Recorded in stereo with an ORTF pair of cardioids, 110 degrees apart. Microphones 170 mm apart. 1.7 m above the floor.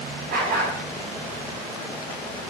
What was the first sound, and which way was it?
A dog barking, 65° right.